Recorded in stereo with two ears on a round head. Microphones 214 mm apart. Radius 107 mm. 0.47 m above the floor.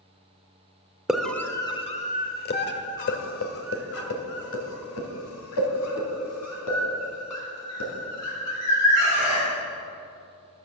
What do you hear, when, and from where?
1.1 s a scream: 5° right (ahead or behind), 1.3 m; by 9.5 s 80° left, 6.5 m